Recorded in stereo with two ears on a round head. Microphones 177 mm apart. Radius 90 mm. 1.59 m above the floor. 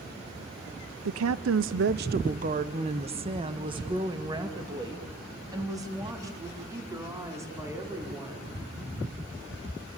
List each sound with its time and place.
1.1 s a woman speaking: 65° right (ahead or behind), 0.6 m; by 8.5 s 15° right (ahead or behind), 5.5 m